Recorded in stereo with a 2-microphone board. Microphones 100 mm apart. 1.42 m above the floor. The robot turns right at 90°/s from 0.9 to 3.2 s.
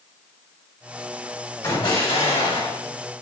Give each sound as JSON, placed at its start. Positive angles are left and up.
{"t": 1.6, "sound": "an explosion", "azimuth_deg": 35, "distance_m": 2.0}